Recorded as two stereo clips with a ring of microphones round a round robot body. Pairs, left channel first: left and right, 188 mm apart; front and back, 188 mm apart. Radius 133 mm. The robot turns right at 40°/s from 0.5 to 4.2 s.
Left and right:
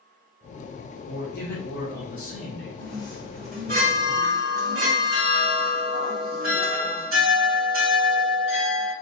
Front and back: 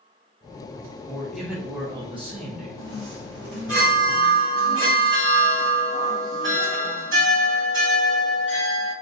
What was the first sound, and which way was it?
A man speaking, 80° left.